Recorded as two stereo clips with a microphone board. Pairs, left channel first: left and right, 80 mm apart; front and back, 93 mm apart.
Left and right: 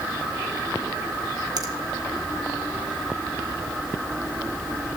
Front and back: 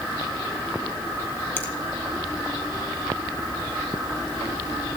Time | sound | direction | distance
1.6 | a finger snap | 65° right | 1.6 m